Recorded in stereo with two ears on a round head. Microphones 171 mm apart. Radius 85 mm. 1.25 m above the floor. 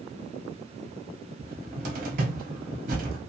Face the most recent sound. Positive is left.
turn(degrees=-45)  # may be behind; listen again after turning